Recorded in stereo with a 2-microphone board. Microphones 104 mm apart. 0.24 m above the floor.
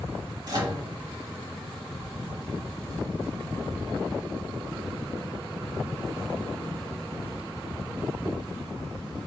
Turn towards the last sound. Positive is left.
turn(degrees=-40)  # may be behind; listen again after turning